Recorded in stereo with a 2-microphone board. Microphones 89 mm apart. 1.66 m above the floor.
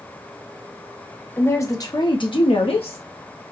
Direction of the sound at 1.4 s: 20° left (ahead or behind).